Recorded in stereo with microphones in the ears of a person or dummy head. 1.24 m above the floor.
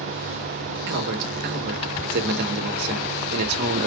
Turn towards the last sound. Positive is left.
turn(degrees=-60)  # may be behind; listen again after turning